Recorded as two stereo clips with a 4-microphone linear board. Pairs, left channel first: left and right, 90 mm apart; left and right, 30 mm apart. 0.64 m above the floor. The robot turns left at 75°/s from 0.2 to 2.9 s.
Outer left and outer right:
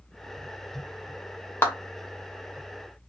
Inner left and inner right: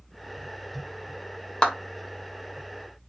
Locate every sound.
1.6 s a clap: 25° left (ahead or behind), 1.2 m; by 1.7 s 30° left (ahead or behind), 1.2 m